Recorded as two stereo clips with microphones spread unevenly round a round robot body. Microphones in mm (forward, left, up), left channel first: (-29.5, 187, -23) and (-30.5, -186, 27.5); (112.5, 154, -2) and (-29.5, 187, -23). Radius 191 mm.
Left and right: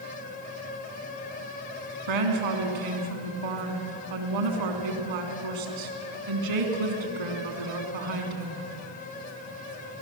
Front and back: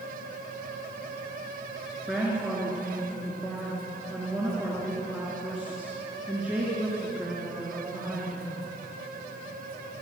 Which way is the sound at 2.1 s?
105° right.